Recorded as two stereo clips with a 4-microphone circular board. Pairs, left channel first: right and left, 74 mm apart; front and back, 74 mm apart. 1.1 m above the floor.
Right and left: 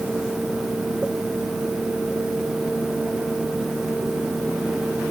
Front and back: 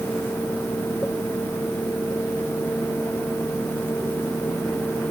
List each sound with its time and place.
Only background noise.